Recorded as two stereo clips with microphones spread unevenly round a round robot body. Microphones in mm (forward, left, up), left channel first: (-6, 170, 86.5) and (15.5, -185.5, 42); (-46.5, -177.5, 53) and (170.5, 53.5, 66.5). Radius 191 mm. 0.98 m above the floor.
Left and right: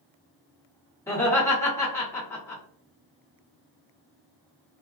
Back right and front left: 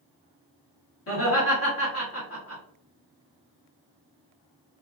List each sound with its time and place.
1.1 s laughter: straight behind, 1.5 m